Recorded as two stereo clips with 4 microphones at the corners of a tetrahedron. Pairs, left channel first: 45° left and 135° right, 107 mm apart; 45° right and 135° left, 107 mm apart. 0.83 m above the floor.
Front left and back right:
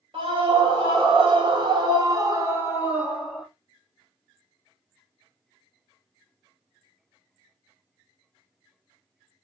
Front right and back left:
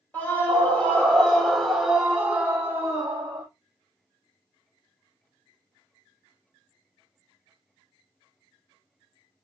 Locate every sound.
0.1 s a scream: 115° right, 1.7 m; by 3.5 s 130° left, 0.9 m